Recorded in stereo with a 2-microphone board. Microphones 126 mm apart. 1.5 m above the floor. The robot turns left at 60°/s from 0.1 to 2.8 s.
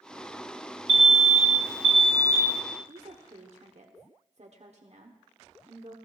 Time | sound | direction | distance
0.9 | an alarm | 65° right | 0.9 m
2.9 | a woman speaking | 60° right (ahead or behind) | 1.0 m